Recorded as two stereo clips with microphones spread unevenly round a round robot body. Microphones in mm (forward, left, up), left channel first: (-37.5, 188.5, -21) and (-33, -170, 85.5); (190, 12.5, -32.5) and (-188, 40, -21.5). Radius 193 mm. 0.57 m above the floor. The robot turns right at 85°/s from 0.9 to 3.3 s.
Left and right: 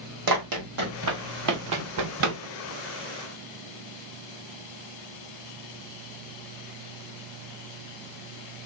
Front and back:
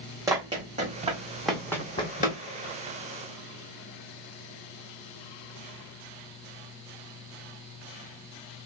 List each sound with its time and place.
0.3 s running footsteps: 105° right, 1.4 m; by 2.4 s 65° right, 1.0 m